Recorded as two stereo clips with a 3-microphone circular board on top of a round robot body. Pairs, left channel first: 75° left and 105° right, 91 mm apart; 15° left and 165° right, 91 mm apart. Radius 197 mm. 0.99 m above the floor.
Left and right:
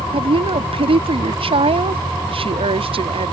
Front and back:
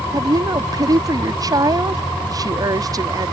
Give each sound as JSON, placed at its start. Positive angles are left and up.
{"t": 0.1, "sound": "a woman speaking", "azimuth_deg": -115}